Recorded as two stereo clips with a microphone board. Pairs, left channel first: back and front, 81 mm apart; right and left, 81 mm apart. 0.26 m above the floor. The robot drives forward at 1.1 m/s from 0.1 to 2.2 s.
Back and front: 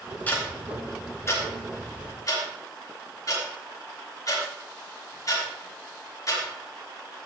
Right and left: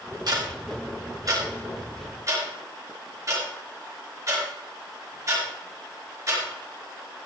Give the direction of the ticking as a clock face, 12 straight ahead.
8 o'clock.